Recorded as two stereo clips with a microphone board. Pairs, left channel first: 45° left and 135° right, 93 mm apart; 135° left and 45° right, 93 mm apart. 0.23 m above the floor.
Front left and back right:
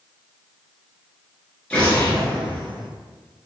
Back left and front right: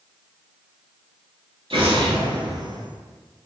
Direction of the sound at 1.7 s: 35° right.